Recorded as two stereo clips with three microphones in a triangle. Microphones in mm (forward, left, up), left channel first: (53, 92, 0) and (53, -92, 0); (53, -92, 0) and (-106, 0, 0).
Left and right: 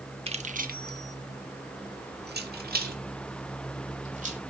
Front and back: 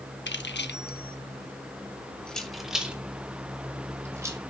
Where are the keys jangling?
30° right, 1.1 m; by 4.4 s 135° right, 3.5 m.